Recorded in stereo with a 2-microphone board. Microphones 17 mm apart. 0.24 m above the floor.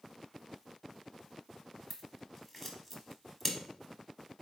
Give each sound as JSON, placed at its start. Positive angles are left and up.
{"t": 1.9, "sound": "scissors", "side_deg": 20, "distance_m": 0.9}